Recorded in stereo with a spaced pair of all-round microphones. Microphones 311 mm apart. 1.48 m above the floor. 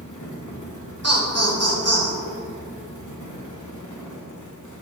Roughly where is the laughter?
Right.